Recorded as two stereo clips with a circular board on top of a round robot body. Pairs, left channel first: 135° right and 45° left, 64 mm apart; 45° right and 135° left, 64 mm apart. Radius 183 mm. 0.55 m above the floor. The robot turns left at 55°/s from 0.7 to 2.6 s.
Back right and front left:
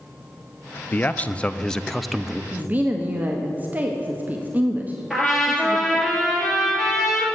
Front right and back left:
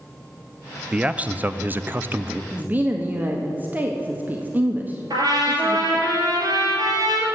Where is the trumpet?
130° left, 2.5 m.